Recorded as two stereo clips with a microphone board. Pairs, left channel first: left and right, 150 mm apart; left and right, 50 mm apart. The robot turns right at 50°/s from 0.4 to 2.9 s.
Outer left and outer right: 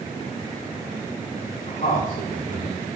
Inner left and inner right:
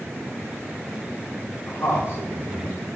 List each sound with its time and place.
1.7 s a man speaking: 75° left (ahead or behind), 3 m; by 2.9 s 30° left (ahead or behind), 3 m